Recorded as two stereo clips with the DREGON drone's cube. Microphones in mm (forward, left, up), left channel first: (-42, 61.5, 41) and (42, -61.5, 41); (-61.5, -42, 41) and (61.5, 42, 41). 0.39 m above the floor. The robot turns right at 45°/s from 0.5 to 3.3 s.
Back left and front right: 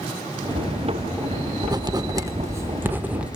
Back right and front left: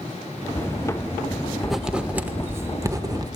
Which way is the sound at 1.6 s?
55° right.